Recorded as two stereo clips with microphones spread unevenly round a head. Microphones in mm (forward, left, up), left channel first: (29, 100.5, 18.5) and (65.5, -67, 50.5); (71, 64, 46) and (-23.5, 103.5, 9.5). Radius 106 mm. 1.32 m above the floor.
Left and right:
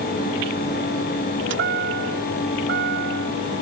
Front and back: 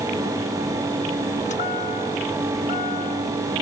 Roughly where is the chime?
Right.